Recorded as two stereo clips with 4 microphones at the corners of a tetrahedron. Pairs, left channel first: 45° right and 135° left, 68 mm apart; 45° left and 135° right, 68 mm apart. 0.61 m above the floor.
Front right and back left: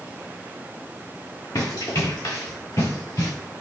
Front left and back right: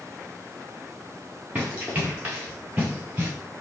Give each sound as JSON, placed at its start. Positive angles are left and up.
{"t": 1.6, "sound": "running footsteps", "azimuth_deg": -65, "distance_m": 5.5}